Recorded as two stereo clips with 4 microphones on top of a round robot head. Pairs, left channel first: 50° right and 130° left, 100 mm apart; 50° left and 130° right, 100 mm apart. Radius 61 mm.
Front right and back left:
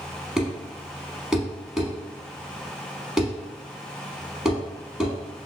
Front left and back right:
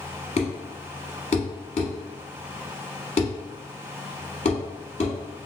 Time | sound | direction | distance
0.4 | a thud | 50° left | 0.8 m